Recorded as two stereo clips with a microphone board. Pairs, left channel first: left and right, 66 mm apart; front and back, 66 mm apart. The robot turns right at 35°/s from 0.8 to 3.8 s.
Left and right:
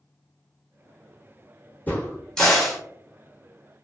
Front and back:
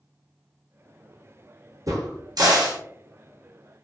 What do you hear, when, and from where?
1.9 s a crack: 155° left, 0.9 m; by 2.8 s 175° right, 0.9 m